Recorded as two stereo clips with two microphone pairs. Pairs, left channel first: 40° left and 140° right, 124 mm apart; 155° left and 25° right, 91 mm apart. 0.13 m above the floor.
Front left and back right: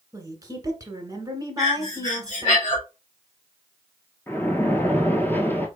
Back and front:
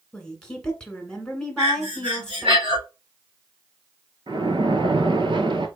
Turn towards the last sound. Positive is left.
turn(degrees=-35)